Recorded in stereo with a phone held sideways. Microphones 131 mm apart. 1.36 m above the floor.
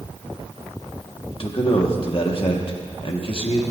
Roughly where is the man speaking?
Left.